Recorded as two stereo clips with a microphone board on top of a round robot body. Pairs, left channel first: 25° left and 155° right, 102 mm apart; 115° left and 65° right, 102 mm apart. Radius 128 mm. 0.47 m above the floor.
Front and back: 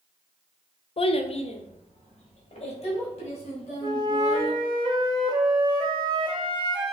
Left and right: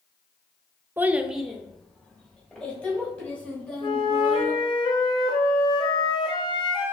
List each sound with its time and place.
1.0 s a child speaking: straight ahead, 0.6 m; by 4.6 s 35° left, 3.5 m
3.8 s a flute: 155° left, 0.7 m